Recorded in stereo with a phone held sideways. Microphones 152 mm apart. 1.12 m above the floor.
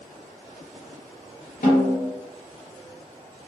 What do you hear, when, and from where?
1.6 s a snare drum: 70° left (ahead or behind), 1.1 m